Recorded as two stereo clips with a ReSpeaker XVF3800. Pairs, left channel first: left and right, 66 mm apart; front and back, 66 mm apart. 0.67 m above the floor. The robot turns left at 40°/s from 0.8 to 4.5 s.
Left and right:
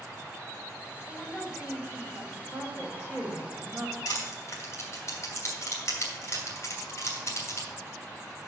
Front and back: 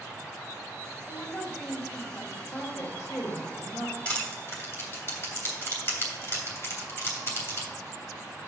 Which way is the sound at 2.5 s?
55° left.